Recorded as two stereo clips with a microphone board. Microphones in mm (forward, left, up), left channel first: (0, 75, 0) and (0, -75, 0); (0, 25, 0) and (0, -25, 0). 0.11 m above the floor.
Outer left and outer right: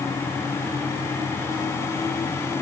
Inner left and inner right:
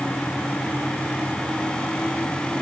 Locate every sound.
Only background noise.